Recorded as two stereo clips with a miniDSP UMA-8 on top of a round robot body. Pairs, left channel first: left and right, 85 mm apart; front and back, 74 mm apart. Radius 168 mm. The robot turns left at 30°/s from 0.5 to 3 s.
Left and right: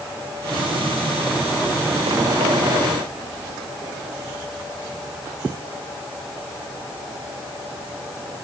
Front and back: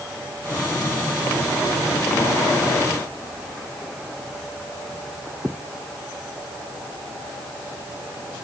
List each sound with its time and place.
Only background noise.